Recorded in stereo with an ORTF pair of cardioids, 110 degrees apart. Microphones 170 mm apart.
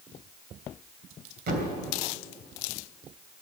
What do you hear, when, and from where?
1.5 s a thud: 60° right, 3 m